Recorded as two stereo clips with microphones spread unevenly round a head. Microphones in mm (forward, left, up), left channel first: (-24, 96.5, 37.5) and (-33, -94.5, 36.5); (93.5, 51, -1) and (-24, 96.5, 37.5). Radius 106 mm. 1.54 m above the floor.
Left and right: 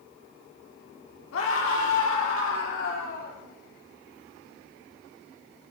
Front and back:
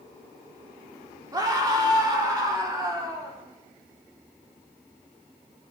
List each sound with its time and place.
1.3 s a scream: 100° left, 4 m; by 3.4 s 95° left, 6 m